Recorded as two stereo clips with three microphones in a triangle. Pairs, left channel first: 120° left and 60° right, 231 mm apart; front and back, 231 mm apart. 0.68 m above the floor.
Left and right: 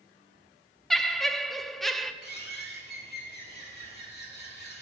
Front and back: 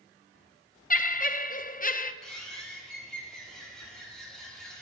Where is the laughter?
30° left, 0.6 m.